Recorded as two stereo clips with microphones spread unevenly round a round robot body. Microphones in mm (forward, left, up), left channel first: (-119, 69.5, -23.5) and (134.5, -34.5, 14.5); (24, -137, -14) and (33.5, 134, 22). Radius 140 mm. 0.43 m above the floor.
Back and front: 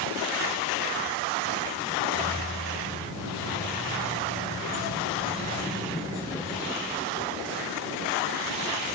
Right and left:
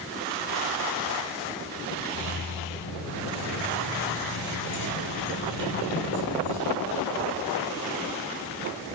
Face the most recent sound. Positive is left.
turn(degrees=-100)